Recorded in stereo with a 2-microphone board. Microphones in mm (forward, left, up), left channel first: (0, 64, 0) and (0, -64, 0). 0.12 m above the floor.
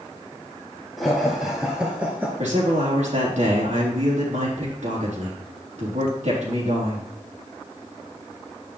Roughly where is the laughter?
Centre.